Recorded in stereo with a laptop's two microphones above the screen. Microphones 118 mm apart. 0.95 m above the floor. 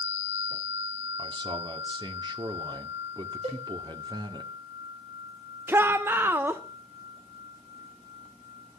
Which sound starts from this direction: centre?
A shout, at 5.7 s.